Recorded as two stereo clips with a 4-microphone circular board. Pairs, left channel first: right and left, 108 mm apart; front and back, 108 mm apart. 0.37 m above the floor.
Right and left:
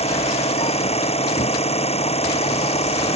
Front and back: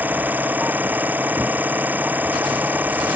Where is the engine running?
105° right.